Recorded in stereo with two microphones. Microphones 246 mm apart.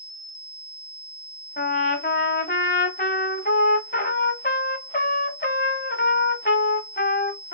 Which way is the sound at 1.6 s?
40° left (ahead or behind).